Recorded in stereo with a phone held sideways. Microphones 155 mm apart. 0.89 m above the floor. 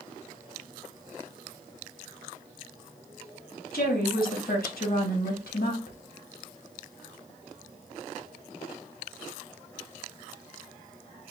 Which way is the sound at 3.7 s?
75° left (ahead or behind).